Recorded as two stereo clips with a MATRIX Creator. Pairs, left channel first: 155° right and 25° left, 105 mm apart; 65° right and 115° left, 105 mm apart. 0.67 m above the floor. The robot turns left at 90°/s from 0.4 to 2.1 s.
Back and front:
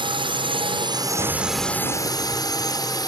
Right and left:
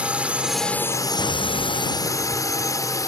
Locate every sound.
0.0 s a drone: 35° left; by 3.1 s 115° right
1.2 s an explosion: 20° right; by 2.6 s 100° right